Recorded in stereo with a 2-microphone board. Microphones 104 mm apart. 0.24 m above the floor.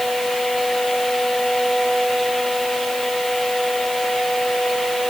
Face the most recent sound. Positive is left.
No sound to turn to.